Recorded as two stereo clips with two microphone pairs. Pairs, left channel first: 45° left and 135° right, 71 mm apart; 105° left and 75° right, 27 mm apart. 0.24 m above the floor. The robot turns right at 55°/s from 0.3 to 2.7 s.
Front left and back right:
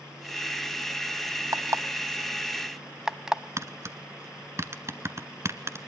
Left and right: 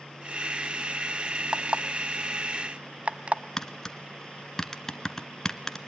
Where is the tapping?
Straight behind, 1.0 m.